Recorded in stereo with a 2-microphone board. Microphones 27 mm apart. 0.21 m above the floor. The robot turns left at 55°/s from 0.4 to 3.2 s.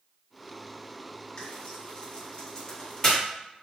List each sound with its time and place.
1.4 s frying: 40° left (ahead or behind), 2.0 m; by 3.2 s 5° left (ahead or behind), 2.0 m